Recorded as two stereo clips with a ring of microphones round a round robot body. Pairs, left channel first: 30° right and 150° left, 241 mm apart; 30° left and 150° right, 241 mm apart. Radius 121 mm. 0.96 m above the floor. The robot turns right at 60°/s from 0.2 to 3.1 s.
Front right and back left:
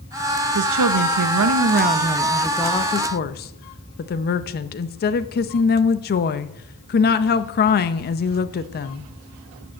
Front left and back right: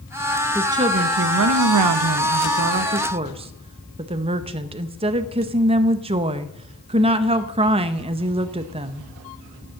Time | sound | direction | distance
0.6 | a woman speaking | 125° left | 0.6 m